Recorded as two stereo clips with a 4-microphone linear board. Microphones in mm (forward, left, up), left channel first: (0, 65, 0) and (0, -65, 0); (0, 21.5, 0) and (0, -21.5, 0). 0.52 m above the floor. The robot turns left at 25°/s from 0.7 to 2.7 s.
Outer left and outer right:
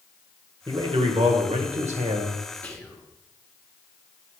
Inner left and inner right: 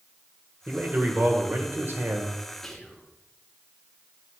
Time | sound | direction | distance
0.7 | a man speaking | 40° right | 1.5 m
2.6 | whispering | 10° left (ahead or behind) | 1.6 m